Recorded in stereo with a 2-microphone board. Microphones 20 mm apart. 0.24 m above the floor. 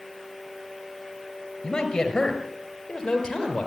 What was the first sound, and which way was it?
A man speaking, 30° left (ahead or behind).